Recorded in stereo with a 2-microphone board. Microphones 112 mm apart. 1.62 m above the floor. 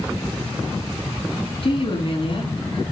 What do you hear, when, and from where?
1.6 s a woman speaking: 50° left (ahead or behind), 5 m